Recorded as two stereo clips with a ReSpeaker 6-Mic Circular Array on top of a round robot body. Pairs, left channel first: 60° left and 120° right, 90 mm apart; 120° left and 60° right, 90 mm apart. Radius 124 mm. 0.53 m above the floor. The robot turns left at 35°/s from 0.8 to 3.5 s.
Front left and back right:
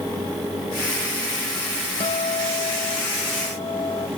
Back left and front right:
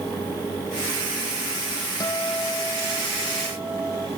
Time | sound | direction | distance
2.0 | a guitar | 70° left | ?